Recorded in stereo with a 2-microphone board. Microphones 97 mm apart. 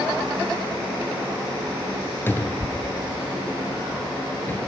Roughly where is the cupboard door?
Left.